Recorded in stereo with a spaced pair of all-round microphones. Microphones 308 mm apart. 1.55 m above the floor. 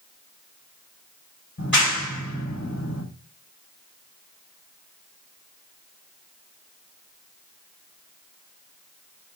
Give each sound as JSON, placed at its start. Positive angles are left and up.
{"t": 1.6, "sound": "a clap", "side_deg": 65, "distance_m": 5.5}